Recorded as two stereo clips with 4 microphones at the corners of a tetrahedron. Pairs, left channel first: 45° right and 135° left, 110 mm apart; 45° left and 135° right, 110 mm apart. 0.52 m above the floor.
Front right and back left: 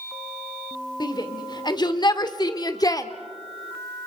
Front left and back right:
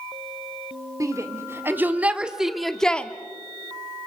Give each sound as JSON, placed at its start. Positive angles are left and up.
{"t": 1.0, "sound": "a shout", "azimuth_deg": -80, "distance_m": 1.8}